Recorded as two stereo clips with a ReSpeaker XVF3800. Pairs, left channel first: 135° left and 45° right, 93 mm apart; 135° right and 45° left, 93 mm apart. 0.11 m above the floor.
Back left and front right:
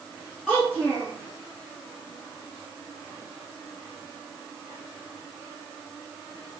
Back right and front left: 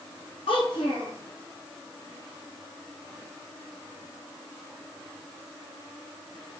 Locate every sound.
0.5 s a child speaking: 140° right, 3 m